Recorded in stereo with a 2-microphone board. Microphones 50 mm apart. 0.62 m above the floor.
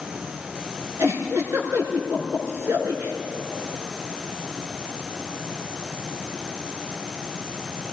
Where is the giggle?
70° right (ahead or behind), 5.5 m.